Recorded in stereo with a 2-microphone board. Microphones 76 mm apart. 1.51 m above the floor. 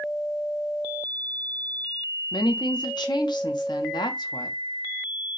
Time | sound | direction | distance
2.3 | a woman speaking | 80° left | 0.8 m